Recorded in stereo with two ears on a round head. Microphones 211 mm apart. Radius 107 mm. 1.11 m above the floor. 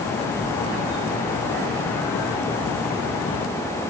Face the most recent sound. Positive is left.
No sound to turn to.